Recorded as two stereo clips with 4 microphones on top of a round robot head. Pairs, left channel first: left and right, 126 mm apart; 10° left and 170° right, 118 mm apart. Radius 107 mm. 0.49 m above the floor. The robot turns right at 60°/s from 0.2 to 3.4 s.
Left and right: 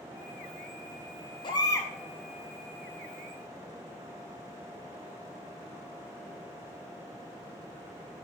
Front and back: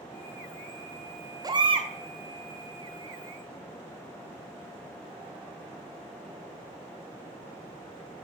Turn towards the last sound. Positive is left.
turn(degrees=-105)